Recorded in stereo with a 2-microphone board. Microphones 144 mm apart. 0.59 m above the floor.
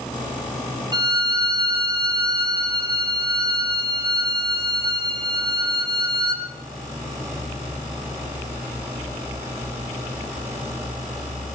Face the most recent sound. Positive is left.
turn(degrees=-30)  # may be behind; listen again after turning